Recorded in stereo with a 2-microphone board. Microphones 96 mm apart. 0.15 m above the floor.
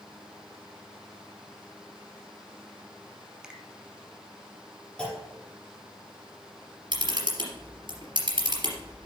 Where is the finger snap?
5° right (ahead or behind), 1.2 m.